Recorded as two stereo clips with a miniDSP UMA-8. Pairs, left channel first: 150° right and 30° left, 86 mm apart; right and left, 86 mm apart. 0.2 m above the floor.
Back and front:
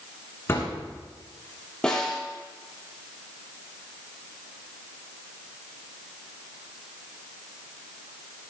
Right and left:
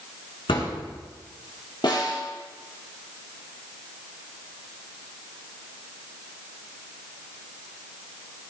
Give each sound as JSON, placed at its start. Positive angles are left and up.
{"t": 0.5, "sound": "a thud", "azimuth_deg": -85, "distance_m": 7.0}
{"t": 1.8, "sound": "a snare drum", "azimuth_deg": -70, "distance_m": 5.0}